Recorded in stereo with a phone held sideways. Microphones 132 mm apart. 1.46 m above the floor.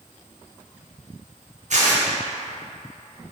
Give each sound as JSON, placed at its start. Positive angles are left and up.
{"t": 1.7, "sound": "tearing paper", "side_deg": -65, "distance_m": 0.7}